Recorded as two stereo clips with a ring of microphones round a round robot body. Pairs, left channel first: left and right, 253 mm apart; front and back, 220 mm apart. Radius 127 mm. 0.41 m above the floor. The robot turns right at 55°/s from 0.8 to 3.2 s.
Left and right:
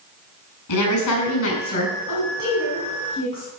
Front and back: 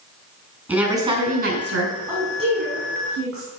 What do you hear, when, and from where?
0.7 s a woman speaking: 95° left, 4.5 m; by 2.0 s 160° left, 4.5 m
2.1 s a woman speaking: 100° left, 4.5 m; by 3.5 s 160° left, 4.5 m